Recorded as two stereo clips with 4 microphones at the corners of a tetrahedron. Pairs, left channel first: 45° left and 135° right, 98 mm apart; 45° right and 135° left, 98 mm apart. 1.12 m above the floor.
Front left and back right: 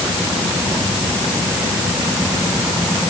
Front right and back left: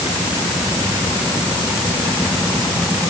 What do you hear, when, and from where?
Only background noise.